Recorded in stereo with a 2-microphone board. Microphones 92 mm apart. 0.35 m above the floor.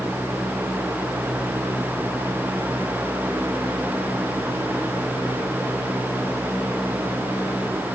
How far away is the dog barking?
I don't hear a dog barking.